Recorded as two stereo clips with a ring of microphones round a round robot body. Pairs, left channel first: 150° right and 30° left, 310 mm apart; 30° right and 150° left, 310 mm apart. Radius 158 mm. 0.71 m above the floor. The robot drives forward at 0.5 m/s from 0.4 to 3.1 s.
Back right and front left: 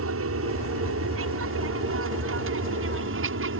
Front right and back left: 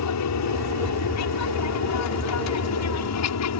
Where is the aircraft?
10° right.